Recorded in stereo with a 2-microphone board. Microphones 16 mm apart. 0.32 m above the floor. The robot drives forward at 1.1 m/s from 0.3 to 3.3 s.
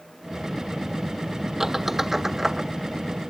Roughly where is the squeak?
Right.